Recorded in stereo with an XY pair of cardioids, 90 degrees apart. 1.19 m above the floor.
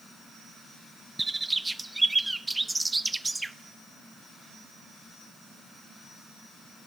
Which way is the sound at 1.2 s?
15° right.